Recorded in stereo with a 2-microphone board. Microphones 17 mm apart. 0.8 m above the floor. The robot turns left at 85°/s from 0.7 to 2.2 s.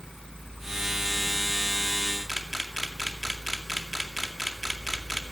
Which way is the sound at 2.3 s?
10° right (ahead or behind).